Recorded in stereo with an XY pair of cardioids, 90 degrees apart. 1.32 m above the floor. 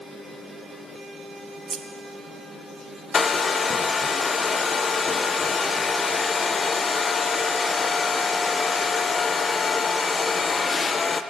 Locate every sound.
1.7 s scissors: 45° right, 1.0 m
3.1 s a hair dryer: 40° left, 0.6 m